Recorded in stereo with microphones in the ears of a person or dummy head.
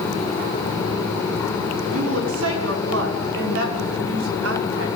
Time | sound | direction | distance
1.9 | a woman speaking | 85° right | 6 m